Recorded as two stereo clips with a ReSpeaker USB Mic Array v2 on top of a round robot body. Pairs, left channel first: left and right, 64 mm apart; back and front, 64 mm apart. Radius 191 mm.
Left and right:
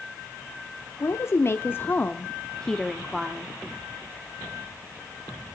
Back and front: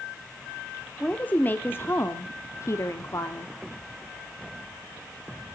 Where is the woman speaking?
115° left, 1.4 m; by 3.5 s 170° right, 1.3 m.